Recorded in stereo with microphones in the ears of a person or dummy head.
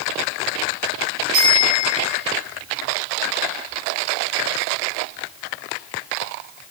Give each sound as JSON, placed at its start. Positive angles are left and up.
{"t": 1.3, "sound": "a bicycle bell", "side_deg": -85, "distance_m": 10.0}